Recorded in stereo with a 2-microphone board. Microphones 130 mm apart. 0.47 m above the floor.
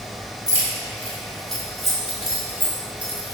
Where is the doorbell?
I don't hear a doorbell.